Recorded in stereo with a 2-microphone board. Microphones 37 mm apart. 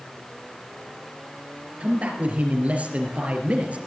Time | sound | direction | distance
1.8 | a man speaking | 40° right (ahead or behind) | 4 m